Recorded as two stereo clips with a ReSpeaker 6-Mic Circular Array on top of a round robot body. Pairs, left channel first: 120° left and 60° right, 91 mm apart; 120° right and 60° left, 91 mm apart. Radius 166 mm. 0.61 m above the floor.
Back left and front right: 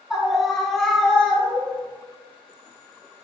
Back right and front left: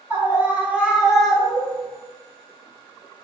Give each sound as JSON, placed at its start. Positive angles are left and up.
{"t": 0.1, "sound": "a scream", "azimuth_deg": 20, "distance_m": 1.3}